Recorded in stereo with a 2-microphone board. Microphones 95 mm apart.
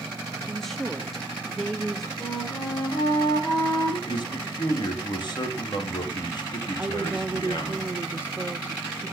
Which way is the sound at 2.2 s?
55° left (ahead or behind).